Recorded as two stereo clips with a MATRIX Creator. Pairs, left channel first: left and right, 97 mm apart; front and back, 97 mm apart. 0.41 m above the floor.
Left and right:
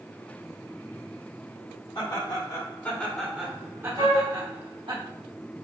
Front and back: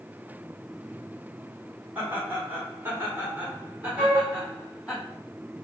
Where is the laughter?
115° left, 1.8 m; by 5.0 s 100° right, 2 m.